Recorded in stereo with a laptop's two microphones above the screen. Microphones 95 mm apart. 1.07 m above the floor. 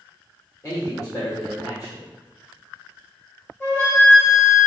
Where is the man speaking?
35° left (ahead or behind), 1.7 m.